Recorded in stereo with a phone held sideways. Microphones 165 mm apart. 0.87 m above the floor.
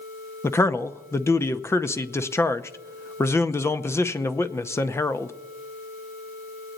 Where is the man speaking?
15° left (ahead or behind), 0.7 m.